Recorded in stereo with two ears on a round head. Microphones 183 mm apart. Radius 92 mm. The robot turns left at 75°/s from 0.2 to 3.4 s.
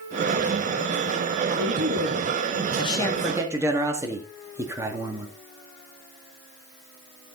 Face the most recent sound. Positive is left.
turn(degrees=-15)